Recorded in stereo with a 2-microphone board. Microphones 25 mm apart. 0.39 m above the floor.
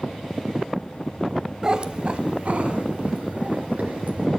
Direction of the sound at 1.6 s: 25° right (ahead or behind).